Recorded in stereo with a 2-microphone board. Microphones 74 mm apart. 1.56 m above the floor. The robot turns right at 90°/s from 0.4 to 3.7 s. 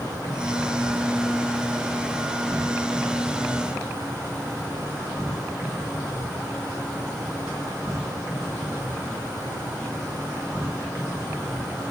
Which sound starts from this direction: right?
An insect, at 0.0 s.